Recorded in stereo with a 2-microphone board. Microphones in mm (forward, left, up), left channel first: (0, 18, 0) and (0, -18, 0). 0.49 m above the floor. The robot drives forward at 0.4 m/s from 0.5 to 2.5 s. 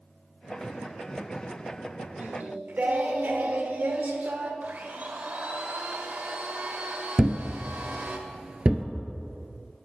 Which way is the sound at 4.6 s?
50° right (ahead or behind).